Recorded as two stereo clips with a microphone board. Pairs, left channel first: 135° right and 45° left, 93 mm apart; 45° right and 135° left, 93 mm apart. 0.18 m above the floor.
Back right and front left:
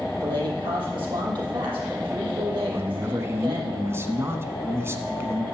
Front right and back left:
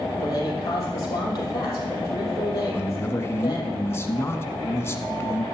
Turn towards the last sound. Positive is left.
turn(degrees=0)